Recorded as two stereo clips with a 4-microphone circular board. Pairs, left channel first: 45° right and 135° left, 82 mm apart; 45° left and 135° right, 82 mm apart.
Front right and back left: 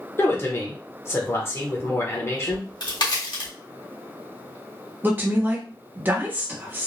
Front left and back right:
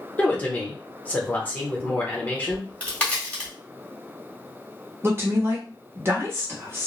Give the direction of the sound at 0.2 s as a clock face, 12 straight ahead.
12 o'clock.